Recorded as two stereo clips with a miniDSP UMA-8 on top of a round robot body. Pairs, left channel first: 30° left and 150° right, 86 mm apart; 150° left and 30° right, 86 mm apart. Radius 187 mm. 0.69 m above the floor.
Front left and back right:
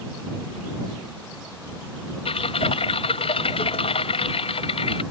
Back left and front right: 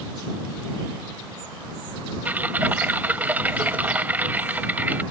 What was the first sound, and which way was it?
Typing on a keyboard, 45° left.